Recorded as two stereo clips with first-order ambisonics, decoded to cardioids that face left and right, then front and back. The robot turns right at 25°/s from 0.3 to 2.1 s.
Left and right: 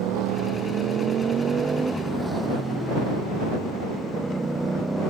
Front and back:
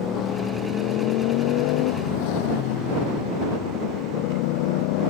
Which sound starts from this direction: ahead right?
A motorcycle, at 0.0 s.